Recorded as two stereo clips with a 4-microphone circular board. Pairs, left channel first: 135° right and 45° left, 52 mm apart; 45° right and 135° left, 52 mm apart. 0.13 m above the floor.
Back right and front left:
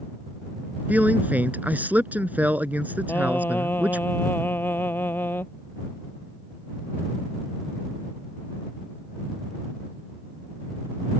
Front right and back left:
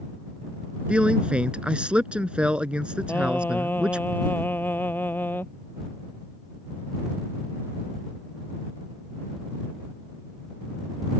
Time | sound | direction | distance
0.9 | a man speaking | 75° left | ?
3.1 | singing | 95° right | ?